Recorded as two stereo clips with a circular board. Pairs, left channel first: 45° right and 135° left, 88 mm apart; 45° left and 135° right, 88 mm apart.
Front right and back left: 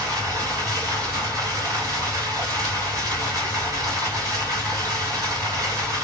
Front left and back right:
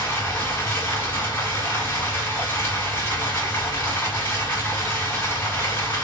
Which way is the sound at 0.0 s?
100° left.